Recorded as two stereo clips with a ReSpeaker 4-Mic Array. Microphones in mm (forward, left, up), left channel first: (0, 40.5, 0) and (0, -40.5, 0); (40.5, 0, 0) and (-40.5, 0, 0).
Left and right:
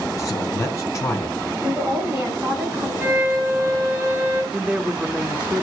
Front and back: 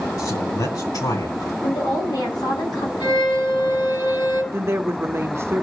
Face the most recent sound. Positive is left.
turn(degrees=-155)